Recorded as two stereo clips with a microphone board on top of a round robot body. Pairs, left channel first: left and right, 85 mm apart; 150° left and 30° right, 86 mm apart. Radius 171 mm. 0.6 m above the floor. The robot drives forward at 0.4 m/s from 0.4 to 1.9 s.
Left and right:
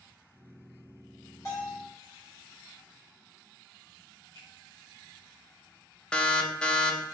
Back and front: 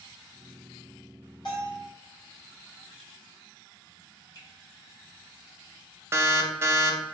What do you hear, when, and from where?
1.4 s a bell: 135° left, 1.7 m; by 1.9 s 140° left, 1.8 m
4.3 s a finger snap: 115° left, 1.5 m
6.1 s an alarm: 15° left, 0.6 m